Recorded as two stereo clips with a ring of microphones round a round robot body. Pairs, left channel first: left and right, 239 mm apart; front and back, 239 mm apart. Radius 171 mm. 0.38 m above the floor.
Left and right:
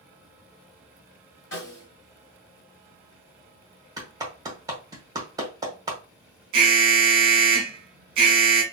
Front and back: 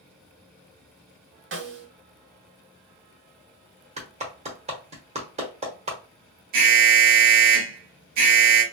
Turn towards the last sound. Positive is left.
turn(degrees=-135)